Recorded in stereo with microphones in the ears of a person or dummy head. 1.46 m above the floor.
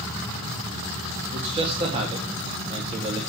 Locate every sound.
1.3 s a man speaking: 30° right (ahead or behind), 2 m